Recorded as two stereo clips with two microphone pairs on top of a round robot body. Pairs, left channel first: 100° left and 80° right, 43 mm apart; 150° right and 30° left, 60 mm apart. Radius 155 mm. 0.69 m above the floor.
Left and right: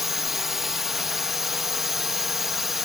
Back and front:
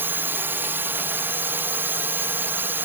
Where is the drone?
Straight ahead.